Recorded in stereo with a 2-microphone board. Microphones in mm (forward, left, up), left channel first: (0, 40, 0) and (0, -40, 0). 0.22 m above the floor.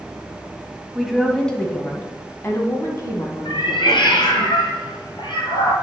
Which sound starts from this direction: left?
A cat meowing, at 3.5 s.